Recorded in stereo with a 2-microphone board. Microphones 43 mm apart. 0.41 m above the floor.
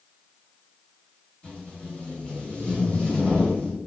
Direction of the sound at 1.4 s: 40° left (ahead or behind).